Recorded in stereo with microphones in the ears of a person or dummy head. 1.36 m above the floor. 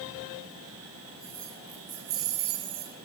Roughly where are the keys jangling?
Centre.